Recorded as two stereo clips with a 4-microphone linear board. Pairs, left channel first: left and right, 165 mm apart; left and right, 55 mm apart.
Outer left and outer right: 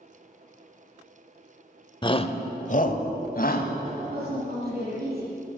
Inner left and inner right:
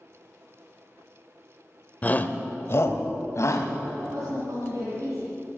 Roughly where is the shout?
Left.